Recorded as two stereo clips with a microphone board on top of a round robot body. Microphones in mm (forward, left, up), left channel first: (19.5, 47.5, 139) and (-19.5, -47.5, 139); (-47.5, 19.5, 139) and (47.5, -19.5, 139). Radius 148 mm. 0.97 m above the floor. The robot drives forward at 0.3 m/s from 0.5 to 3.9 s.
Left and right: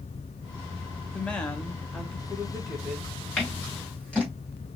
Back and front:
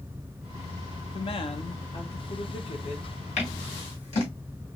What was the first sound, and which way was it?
A woman speaking, 140° left.